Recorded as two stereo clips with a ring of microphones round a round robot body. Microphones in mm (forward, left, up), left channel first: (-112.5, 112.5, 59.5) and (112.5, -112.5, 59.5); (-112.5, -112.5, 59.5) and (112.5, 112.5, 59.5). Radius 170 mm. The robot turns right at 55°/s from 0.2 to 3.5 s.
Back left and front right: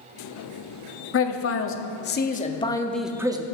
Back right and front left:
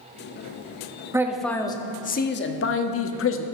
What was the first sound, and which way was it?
A man speaking, 120° left.